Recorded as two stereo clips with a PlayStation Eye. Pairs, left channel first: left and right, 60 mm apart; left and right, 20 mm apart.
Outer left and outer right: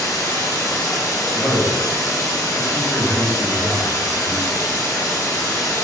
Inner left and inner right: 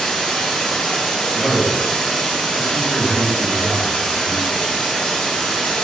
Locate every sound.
0.0 s running water: 65° left (ahead or behind), 1.0 m
1.3 s a man speaking: 50° left (ahead or behind), 1.7 m